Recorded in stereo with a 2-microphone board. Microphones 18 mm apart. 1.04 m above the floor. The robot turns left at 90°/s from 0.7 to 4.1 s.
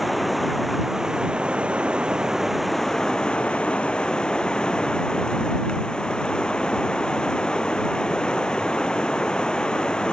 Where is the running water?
5° right; by 10.1 s 50° left.